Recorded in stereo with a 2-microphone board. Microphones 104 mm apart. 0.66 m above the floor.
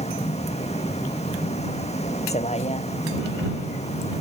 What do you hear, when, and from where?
0.0 s a vehicle: 80° left; by 4.2 s 85° left